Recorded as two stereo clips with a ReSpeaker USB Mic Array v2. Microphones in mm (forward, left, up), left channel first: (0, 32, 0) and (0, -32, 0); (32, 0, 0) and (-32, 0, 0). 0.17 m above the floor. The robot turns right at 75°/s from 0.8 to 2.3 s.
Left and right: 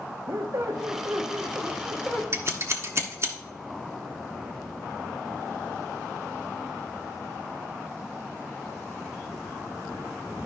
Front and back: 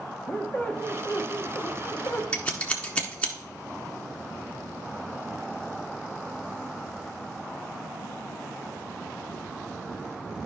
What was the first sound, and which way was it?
A squeak, 65° right.